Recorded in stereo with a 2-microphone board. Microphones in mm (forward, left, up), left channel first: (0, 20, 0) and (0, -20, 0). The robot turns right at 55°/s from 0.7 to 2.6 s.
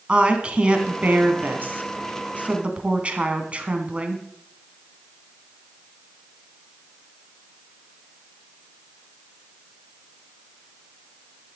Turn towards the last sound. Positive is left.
turn(degrees=-40)